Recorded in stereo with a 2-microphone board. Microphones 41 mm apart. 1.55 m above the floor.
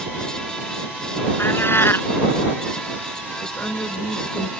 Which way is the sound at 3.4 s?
55° left (ahead or behind).